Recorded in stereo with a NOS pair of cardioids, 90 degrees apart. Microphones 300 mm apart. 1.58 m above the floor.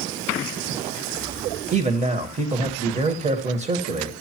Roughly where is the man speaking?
Ahead right.